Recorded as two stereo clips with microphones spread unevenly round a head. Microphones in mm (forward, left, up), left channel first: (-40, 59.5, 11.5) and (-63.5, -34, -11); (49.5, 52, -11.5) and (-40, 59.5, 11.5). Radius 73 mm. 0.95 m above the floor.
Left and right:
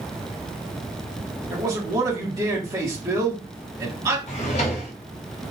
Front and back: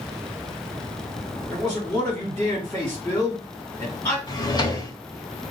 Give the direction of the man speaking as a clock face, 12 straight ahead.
2 o'clock.